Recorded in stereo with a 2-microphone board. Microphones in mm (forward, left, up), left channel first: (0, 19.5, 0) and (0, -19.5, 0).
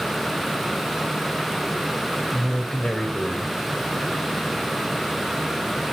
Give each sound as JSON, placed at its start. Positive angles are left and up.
{"t": 2.3, "sound": "a man speaking", "side_deg": 30, "distance_m": 2.0}